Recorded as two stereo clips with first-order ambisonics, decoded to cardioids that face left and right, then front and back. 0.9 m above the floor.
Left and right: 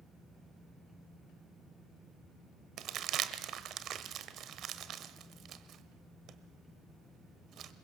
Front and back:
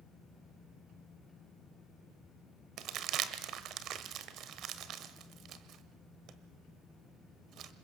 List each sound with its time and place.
2.8 s crumpling: 140° right, 1.1 m